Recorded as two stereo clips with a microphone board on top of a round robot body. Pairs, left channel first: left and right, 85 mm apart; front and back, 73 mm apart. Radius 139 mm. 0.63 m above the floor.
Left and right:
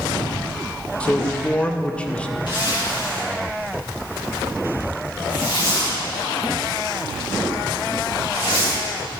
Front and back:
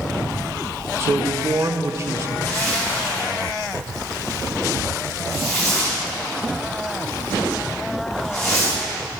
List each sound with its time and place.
1.0 s a man speaking: 160° left, 0.8 m
2.5 s a zipper: 55° left, 4.5 m